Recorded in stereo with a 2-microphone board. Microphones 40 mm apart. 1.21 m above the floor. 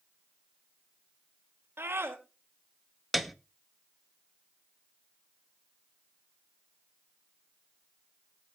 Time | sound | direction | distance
1.8 | a scream | 75° right (ahead or behind) | 2.5 m
3.1 | a piano | 5° right (ahead or behind) | 0.8 m